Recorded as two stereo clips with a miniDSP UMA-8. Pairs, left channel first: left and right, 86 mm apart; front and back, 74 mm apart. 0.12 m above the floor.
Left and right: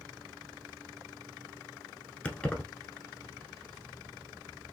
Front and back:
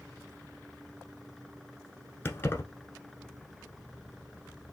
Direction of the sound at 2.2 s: 25° left.